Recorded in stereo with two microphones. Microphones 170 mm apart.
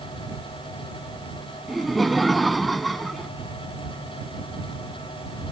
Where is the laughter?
Centre (ahead or behind).